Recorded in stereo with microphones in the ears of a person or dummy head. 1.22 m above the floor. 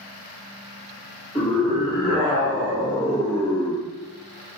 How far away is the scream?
About 1.9 m.